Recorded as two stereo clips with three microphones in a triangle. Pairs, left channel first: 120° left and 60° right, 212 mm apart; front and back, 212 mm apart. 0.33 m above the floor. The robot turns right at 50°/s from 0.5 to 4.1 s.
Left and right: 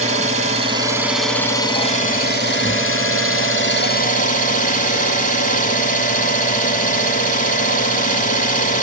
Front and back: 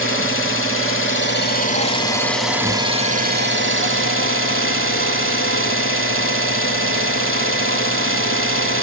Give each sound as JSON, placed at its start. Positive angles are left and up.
{"t": 0.0, "sound": "an engine running", "azimuth_deg": -5, "distance_m": 0.9}